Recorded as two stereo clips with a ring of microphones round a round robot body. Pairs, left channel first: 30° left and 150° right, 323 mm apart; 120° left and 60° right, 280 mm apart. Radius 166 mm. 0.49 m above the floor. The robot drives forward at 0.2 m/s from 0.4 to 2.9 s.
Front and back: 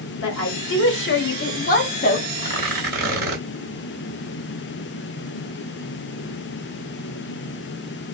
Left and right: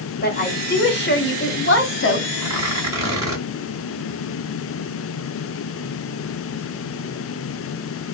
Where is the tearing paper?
120° right, 1.3 m; by 3.4 s 130° right, 1.3 m.